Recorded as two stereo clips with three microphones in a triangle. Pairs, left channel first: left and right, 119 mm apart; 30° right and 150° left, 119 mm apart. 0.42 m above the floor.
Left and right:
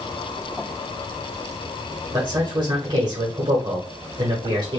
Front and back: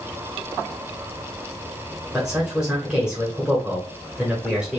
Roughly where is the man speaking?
Behind right.